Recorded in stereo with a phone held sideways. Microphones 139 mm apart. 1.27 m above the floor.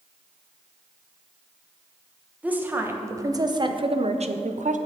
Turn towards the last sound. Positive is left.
turn(degrees=-65)  # may be behind; listen again after turning